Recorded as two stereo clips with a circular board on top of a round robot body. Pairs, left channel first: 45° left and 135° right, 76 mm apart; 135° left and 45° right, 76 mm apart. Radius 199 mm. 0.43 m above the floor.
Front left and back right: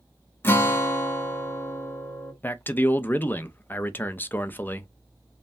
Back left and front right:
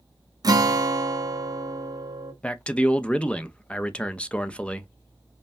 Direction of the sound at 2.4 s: 75° left.